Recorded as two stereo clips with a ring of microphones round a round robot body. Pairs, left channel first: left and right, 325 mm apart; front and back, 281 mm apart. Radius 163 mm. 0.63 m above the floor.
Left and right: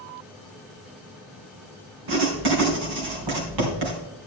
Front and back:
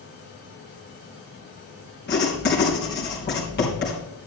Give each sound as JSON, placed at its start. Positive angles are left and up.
{"t": 2.1, "sound": "writing", "azimuth_deg": -65, "distance_m": 3.5}